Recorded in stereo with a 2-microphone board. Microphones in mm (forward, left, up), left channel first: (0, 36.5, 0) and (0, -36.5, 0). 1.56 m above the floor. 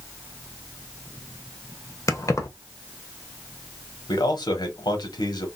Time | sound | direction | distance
2.1 | keys jangling | 45° left (ahead or behind) | 0.7 m
4.1 | a man speaking | 70° left (ahead or behind) | 1.3 m